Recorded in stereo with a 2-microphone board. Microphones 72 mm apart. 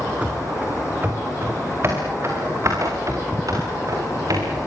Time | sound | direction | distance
0.2 | running footsteps | 15° right (ahead or behind) | 6 m